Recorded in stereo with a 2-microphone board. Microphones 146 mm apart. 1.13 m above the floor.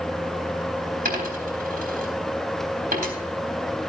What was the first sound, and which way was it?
A dropped coin, 75° right (ahead or behind).